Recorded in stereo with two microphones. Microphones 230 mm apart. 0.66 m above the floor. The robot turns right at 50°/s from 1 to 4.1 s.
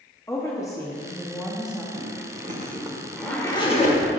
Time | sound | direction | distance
0.3 | a woman speaking | 15° left (ahead or behind) | 0.7 m
1.9 | a zipper | 65° right (ahead or behind) | 1.0 m